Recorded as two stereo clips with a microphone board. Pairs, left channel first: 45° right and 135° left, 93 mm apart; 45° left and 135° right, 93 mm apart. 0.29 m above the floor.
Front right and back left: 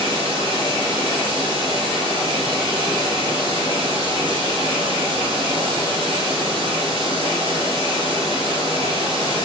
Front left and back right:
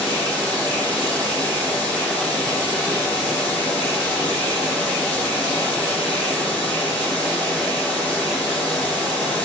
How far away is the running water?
About 5 m.